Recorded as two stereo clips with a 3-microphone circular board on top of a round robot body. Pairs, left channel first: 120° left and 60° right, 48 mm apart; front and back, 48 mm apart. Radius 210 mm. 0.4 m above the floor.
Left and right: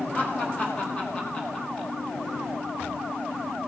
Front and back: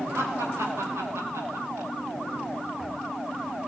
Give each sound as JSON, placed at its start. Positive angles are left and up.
{"t": 0.1, "sound": "laughter", "azimuth_deg": 175, "distance_m": 4.0}